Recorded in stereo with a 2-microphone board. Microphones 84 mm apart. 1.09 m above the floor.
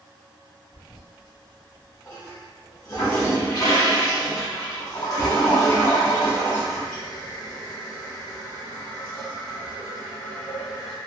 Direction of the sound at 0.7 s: 50° left (ahead or behind).